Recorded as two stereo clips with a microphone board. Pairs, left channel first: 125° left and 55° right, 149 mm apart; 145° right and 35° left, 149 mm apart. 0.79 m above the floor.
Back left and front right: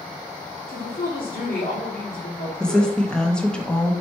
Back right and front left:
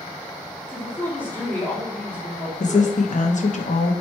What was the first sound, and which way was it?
A woman speaking, 135° left.